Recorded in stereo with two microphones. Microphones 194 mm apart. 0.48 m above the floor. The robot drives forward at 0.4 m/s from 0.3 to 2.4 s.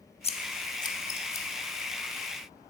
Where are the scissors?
35° left (ahead or behind), 0.5 m; by 1.5 s 15° left (ahead or behind), 0.9 m.